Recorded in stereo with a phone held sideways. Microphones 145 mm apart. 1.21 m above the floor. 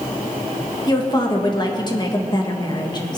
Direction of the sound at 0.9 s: 30° left (ahead or behind).